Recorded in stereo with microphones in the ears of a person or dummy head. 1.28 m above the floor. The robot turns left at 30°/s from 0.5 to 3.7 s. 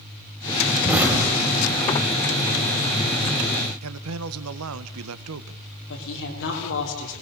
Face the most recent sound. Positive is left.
turn(degrees=55)  # may be behind; listen again after turning